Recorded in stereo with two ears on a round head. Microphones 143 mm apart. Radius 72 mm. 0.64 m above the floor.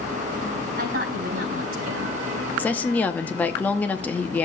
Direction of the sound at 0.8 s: 65° right (ahead or behind).